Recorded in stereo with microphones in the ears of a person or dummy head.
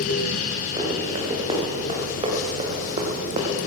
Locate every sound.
0.8 s running footsteps: 25° right (ahead or behind), 4.5 m; by 3.6 s 35° right (ahead or behind), 3 m